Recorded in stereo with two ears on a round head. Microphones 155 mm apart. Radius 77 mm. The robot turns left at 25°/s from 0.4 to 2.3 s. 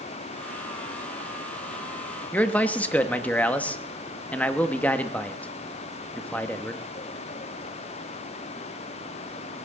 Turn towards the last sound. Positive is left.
turn(degrees=10)  # may be behind; listen again after turning